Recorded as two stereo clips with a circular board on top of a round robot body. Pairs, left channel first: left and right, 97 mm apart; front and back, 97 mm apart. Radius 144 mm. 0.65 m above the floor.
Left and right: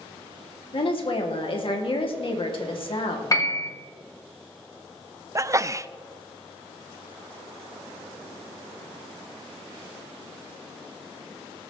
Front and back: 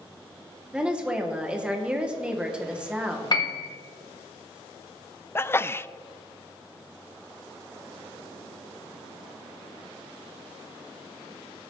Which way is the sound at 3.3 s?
40° left.